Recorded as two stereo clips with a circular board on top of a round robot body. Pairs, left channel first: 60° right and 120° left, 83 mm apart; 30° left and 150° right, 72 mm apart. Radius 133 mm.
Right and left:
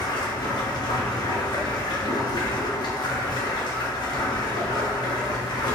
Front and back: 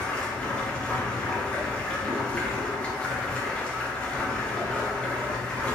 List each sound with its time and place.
0.0 s running water: 45° right, 0.8 m